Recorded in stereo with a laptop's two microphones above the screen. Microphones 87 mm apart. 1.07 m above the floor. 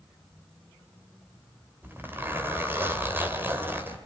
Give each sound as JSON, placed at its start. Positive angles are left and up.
{"t": 1.8, "sound": "a zipper", "side_deg": -25, "distance_m": 2.0}